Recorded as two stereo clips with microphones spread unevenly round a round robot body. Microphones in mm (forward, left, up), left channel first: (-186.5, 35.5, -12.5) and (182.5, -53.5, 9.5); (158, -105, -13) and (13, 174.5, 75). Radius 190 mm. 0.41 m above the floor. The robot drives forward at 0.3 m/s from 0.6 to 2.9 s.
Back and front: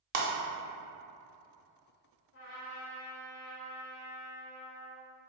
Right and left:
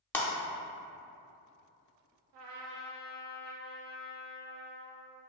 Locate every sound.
0.1 s breaking glass: 15° left, 0.8 m
2.3 s a trumpet: 105° left, 0.6 m; by 5.1 s 125° left, 0.6 m